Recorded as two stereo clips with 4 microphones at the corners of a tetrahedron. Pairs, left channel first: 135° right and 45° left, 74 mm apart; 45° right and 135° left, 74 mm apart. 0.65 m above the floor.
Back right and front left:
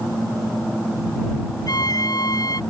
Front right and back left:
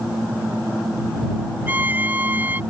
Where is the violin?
160° right.